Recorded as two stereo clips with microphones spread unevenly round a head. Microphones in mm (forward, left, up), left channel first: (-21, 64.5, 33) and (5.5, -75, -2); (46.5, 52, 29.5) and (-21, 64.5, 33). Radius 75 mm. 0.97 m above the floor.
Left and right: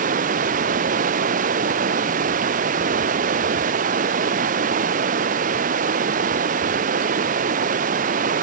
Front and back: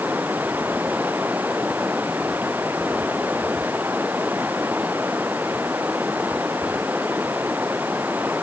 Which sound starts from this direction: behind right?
Running water, at 0.0 s.